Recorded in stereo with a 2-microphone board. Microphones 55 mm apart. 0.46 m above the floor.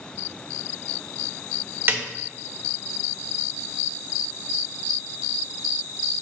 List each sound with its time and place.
1.9 s a snare drum: 40° right (ahead or behind), 0.9 m